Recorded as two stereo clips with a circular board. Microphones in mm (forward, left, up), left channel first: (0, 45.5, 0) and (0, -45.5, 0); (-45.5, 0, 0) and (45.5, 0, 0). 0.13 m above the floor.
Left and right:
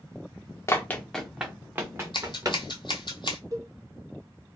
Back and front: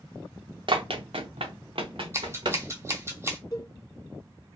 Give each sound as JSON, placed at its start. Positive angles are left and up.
{"t": 0.7, "sound": "running footsteps", "azimuth_deg": 30, "distance_m": 0.7}
{"t": 2.1, "sound": "scissors", "azimuth_deg": 60, "distance_m": 0.8}
{"t": 3.5, "sound": "a cowbell", "azimuth_deg": -135, "distance_m": 0.8}